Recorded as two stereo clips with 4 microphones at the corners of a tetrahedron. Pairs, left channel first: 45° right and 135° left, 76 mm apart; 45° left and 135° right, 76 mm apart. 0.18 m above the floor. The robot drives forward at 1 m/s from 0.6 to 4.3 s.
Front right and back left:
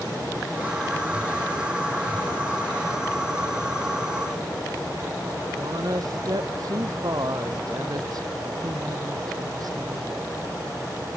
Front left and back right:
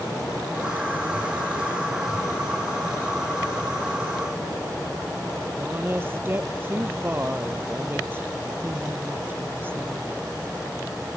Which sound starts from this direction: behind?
A woman speaking, at 5.6 s.